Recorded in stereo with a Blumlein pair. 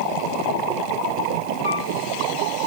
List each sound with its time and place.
1.6 s a piano: 55° left, 3.5 m